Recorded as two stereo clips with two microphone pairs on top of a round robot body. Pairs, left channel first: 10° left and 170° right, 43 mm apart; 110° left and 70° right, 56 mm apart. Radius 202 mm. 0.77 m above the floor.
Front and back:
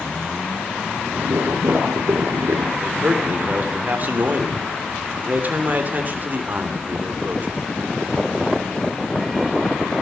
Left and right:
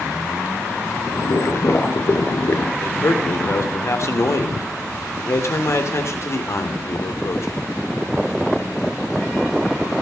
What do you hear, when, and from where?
1.1 s boiling: 155° left, 1.9 m
2.8 s a man speaking: 140° left, 3 m